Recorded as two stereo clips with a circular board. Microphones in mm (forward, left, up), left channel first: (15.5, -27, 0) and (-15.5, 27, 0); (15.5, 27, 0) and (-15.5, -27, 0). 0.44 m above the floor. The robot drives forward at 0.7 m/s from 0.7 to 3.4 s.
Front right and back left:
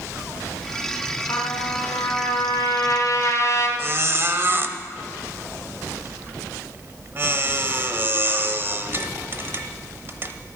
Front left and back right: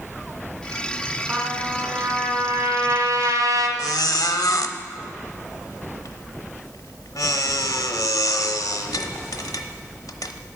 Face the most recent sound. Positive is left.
turn(degrees=70)